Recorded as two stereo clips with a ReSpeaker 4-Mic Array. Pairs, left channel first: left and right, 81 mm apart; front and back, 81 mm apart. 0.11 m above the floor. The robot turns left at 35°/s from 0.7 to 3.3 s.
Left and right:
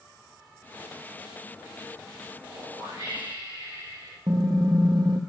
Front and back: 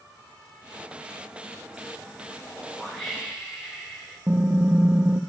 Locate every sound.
2.5 s a whoosh: 70° right, 4.5 m; by 4.2 s 100° right, 4.5 m
4.3 s typing on a keyboard: 110° right, 0.6 m